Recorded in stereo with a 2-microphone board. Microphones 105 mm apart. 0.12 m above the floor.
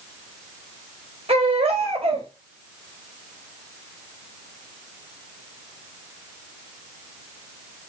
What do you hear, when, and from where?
1.3 s a baby crying: 65° right (ahead or behind), 4.5 m